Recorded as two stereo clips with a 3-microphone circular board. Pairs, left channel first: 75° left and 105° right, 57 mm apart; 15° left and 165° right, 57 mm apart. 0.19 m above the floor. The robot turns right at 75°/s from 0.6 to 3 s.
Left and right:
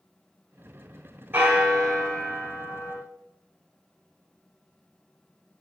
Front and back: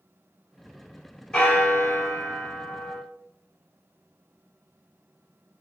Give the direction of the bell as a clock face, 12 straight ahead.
2 o'clock.